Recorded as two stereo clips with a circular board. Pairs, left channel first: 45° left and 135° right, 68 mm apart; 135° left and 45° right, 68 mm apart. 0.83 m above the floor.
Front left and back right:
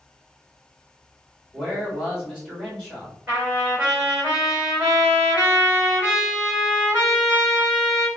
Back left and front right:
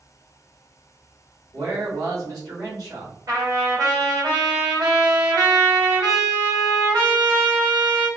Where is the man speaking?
55° right, 1.9 m.